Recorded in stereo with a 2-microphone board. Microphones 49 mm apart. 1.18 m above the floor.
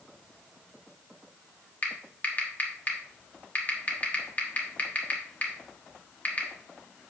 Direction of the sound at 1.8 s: 35° left (ahead or behind).